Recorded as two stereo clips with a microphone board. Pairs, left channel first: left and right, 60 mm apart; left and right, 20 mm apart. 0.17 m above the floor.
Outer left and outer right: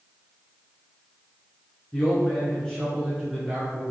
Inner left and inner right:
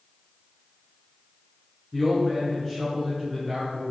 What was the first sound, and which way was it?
A man speaking, 25° left (ahead or behind).